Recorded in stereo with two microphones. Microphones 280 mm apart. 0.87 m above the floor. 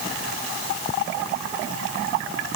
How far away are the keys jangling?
No keys jangling in this recording.